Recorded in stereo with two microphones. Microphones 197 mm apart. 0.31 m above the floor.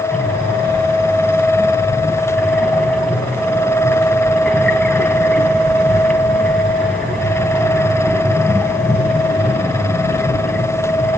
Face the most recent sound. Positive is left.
turn(degrees=5)  # may be behind; listen again after turning